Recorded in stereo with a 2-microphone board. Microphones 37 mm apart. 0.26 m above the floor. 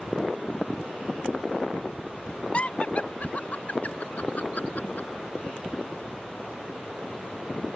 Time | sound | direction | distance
2.5 | laughter | 35° left (ahead or behind) | ?